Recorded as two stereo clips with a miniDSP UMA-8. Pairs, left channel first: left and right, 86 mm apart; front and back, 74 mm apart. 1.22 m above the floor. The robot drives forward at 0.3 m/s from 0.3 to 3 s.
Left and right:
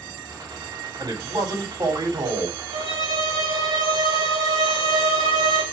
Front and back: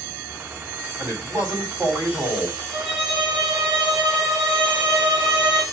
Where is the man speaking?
125° right, 3 m; by 2.6 s 130° right, 3.5 m.